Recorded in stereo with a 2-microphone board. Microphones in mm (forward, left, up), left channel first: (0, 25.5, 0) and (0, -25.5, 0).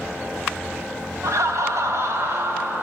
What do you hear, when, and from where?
1.2 s laughter: 75° right (ahead or behind), 0.7 m; by 2.8 s 50° right (ahead or behind), 1.3 m